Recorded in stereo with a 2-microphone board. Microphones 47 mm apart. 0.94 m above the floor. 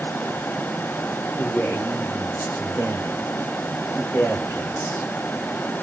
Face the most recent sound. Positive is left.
turn(degrees=80)